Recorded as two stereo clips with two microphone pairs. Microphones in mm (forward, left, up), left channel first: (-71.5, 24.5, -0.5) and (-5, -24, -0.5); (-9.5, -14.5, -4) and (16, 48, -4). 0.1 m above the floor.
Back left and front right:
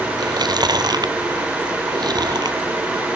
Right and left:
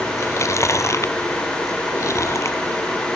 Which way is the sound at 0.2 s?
70° right.